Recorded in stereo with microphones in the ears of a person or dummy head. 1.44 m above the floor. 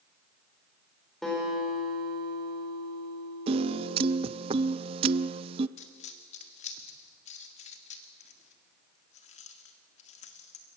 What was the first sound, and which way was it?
A guitar, centre (ahead or behind).